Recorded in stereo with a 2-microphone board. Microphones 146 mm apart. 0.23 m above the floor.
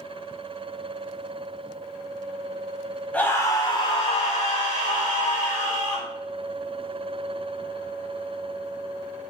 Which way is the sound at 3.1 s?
10° left (ahead or behind).